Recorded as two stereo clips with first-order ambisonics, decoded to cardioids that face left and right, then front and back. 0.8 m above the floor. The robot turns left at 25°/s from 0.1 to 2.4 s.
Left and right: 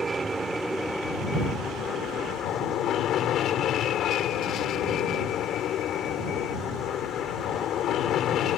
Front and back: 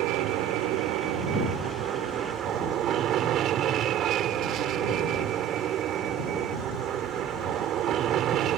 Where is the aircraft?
165° right; by 8.6 s 135° left.